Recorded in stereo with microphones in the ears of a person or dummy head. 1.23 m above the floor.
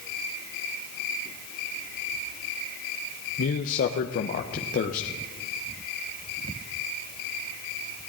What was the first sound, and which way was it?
A man speaking, 50° left (ahead or behind).